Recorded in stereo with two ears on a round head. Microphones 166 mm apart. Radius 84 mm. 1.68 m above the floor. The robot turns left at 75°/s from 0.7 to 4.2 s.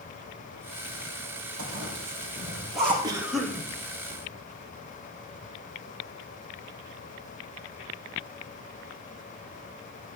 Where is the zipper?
75° right (ahead or behind), 6.5 m; by 2.9 s 10° left (ahead or behind), 6.5 m.